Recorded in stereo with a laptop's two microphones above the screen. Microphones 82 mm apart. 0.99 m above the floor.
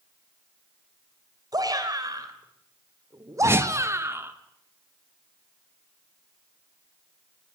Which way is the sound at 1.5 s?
50° right (ahead or behind).